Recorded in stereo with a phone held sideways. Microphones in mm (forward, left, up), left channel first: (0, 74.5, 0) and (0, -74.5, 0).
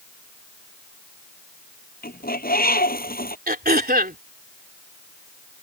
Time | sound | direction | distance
2.0 | a bird | 85° left | ?
3.5 | throat clearing | 85° right | ?